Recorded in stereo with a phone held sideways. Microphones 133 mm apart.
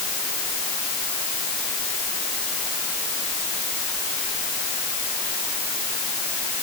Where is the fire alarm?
I don't hear a fire alarm.